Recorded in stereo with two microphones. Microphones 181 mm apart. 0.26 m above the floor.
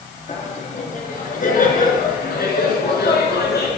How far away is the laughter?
About 3.5 m.